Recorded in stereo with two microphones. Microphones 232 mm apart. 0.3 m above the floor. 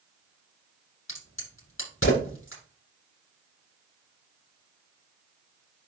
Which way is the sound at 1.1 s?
60° left (ahead or behind).